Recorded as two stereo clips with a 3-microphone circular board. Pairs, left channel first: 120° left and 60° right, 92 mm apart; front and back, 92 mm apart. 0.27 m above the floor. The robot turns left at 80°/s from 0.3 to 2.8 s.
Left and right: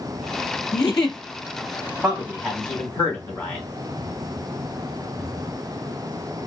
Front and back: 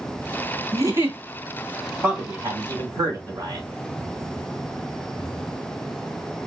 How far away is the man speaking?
About 1.2 m.